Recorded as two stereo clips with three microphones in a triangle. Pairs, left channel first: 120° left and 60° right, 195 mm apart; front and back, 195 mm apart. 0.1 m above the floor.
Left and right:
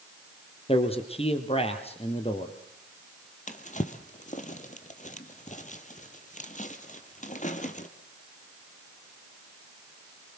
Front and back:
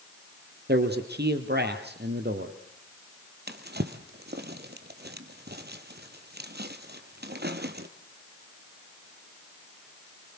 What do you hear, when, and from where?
0.7 s a man speaking: 175° left, 3 m
3.5 s a drawer: 165° left, 1.7 m